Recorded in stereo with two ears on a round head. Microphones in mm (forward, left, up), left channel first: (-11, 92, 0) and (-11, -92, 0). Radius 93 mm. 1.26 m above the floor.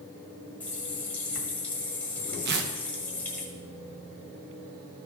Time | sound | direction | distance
0.6 | a running tap | 5° left (ahead or behind) | 1.3 m
2.5 | tearing paper | 50° right (ahead or behind) | 0.8 m